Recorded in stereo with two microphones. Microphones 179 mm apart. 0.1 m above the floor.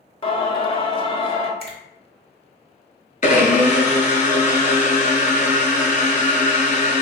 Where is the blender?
45° left (ahead or behind), 0.6 m.